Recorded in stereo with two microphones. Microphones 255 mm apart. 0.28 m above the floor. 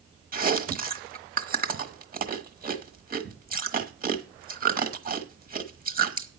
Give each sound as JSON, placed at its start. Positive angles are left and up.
{"t": 0.3, "sound": "chewing", "side_deg": -35, "distance_m": 1.1}